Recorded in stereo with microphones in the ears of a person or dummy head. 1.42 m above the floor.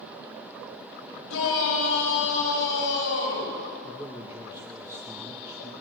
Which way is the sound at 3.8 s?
10° right (ahead or behind).